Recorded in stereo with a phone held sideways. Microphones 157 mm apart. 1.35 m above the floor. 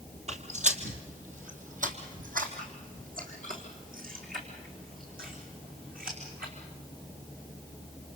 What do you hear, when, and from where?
0.3 s footsteps: 50° right (ahead or behind), 2.0 m; by 6.5 s 75° right (ahead or behind), 5.5 m